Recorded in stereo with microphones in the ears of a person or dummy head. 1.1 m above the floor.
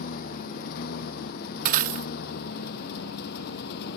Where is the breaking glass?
45° right (ahead or behind).